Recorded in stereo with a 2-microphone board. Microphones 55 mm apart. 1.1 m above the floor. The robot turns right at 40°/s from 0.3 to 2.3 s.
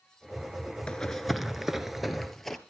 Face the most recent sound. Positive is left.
turn(degrees=5)  # may be behind; listen again after turning